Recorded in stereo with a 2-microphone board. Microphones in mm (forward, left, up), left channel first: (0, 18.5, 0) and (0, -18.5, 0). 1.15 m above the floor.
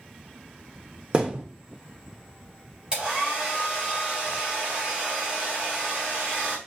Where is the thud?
25° right (ahead or behind), 0.8 m.